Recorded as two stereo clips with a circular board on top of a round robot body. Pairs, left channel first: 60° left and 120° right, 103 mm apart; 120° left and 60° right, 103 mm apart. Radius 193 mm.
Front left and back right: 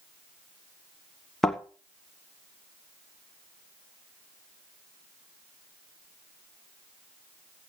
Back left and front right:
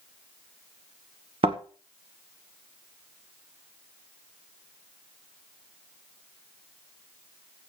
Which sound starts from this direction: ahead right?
A thud, at 1.4 s.